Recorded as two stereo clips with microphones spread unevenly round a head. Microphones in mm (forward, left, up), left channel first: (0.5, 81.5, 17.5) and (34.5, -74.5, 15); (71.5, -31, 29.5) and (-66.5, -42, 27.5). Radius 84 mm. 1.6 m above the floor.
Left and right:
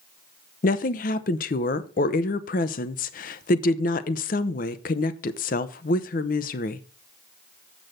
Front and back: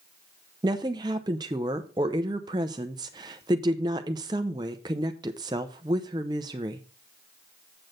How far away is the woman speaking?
About 0.7 m.